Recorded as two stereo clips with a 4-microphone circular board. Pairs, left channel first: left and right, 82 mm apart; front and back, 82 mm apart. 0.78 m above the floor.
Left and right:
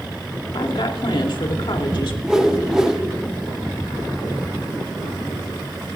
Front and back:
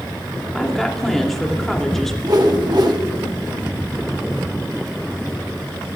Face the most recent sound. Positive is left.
turn(degrees=-170)